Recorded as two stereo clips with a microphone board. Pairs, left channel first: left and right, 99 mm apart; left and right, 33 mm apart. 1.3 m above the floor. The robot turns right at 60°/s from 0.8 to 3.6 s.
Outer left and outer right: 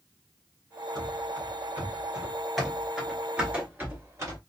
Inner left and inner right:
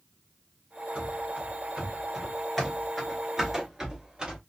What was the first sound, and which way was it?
Running footsteps, 45° right (ahead or behind).